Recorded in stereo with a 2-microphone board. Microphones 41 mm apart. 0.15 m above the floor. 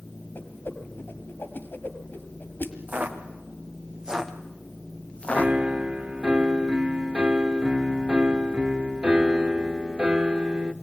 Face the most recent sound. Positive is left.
turn(degrees=-25)  # may be behind; listen again after turning